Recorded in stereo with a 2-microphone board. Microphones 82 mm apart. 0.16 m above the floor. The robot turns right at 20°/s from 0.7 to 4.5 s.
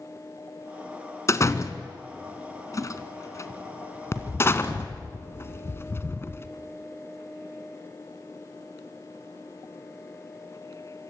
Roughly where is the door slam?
Left.